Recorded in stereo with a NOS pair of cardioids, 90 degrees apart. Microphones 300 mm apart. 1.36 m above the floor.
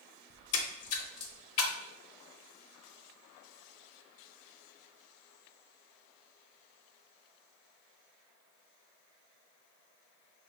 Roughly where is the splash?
Ahead left.